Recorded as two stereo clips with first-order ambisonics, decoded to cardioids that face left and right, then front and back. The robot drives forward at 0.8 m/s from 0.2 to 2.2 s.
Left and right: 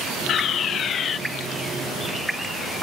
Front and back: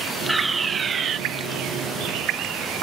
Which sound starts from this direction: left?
A fire alarm, at 0.3 s.